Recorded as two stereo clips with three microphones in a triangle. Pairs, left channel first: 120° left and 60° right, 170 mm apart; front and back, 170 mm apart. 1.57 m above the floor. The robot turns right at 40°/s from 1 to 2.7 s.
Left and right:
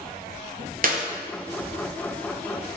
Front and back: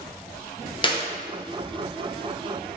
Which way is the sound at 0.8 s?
50° right.